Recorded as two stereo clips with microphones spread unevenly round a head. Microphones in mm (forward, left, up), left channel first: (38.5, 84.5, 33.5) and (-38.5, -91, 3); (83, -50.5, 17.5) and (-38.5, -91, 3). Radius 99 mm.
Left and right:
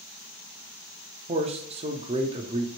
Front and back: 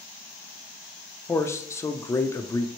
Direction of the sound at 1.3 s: 55° right.